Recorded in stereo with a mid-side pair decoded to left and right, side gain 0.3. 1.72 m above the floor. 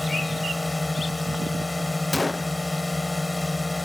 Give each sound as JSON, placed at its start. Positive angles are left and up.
{"t": 0.0, "sound": "a drone", "azimuth_deg": 25}
{"t": 2.1, "sound": "a gunshot", "azimuth_deg": 30}